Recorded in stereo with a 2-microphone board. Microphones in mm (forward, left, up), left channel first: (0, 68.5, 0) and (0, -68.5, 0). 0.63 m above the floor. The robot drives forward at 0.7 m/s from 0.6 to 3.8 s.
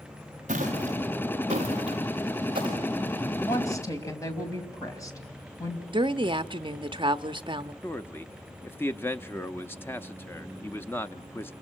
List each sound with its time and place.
0.5 s footsteps: 60° right (ahead or behind), 5.5 m; by 2.8 s 35° right (ahead or behind), 5.5 m
3.4 s a woman speaking: 25° left (ahead or behind), 3 m
5.9 s a woman speaking: 35° right (ahead or behind), 0.7 m
7.8 s a man speaking: 15° left (ahead or behind), 0.5 m